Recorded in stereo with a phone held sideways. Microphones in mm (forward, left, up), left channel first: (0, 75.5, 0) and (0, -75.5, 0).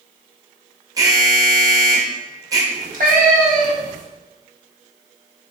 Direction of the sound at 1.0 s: 25° right (ahead or behind).